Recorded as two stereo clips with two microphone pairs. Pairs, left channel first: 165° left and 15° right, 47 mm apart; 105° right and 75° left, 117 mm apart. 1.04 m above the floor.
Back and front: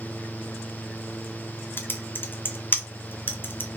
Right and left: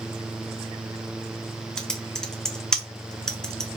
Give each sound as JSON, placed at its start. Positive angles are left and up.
{"t": 1.8, "sound": "typing on a keyboard", "azimuth_deg": 170, "distance_m": 0.6}